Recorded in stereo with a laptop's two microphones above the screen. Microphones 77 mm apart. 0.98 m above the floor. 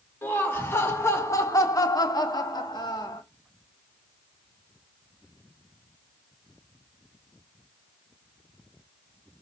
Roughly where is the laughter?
Left.